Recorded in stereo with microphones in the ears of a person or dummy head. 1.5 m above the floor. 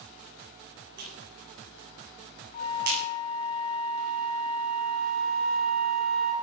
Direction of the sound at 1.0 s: 60° right (ahead or behind).